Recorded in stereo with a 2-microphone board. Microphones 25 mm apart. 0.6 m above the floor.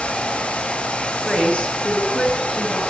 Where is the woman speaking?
50° left (ahead or behind), 9.5 m.